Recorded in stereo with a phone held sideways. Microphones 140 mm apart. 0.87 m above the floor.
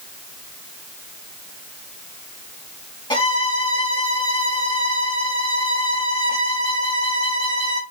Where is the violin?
35° left (ahead or behind), 2.5 m.